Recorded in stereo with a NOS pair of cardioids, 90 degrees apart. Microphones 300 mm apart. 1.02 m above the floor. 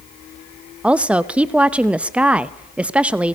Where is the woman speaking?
5° right, 0.7 m.